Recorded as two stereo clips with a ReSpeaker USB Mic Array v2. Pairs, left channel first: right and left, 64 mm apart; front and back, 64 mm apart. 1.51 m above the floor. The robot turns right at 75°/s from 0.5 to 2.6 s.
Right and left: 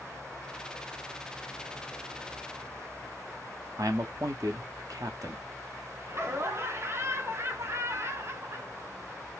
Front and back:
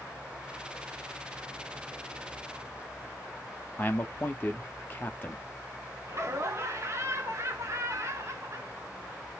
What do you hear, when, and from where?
3.8 s a man speaking: 60° left, 0.8 m
6.1 s laughter: 135° left, 1.0 m